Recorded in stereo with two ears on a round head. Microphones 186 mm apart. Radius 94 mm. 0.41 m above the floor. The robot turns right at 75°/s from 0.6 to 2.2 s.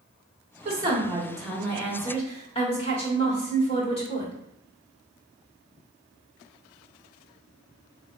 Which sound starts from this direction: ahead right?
A woman speaking, at 0.7 s.